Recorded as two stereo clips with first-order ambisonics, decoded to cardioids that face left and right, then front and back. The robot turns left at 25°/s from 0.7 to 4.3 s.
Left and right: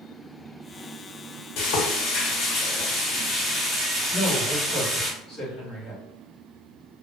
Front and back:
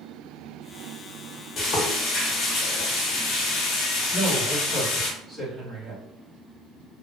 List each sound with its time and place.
1.6 s frying: 60° left, 0.9 m; by 5.1 s 10° right, 0.9 m
4.1 s a woman speaking: 110° left, 1.6 m; by 6.0 s 105° left, 1.6 m